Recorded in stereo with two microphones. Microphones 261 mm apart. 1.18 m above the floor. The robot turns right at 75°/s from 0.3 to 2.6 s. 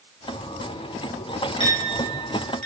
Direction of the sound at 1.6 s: 20° left (ahead or behind).